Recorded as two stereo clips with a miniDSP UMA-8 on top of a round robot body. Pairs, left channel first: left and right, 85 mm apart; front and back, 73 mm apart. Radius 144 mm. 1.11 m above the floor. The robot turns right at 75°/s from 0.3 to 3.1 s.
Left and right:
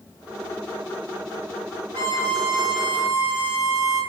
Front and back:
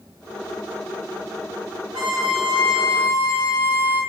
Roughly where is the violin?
Behind left.